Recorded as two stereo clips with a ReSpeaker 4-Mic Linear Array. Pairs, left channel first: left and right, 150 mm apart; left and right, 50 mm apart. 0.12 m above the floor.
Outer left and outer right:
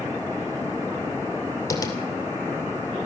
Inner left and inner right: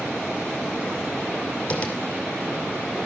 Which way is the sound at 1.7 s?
20° left (ahead or behind).